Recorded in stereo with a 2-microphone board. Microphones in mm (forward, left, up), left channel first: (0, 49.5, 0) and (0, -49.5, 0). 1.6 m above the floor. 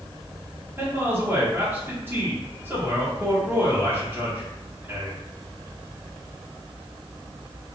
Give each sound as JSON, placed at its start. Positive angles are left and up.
{"t": 0.8, "sound": "a man speaking", "side_deg": -20, "distance_m": 1.3}